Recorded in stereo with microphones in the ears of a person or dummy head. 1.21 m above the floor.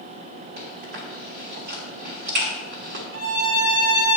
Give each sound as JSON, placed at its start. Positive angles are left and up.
{"t": 0.6, "sound": "chewing", "side_deg": -45, "distance_m": 1.2}
{"t": 3.1, "sound": "a violin", "side_deg": -55, "distance_m": 0.8}